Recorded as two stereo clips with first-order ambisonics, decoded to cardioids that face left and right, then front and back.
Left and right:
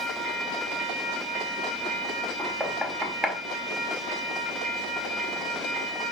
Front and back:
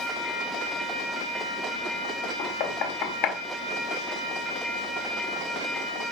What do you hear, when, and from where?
2.4 s knocking: straight ahead, 1.8 m